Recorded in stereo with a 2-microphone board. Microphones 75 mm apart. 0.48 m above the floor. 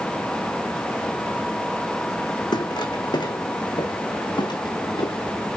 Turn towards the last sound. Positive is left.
turn(degrees=80)